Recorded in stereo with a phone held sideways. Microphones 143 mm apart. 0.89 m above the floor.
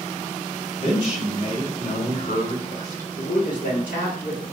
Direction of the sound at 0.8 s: 50° left (ahead or behind).